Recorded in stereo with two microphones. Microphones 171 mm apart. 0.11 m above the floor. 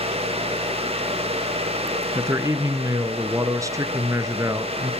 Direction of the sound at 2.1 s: 20° right (ahead or behind).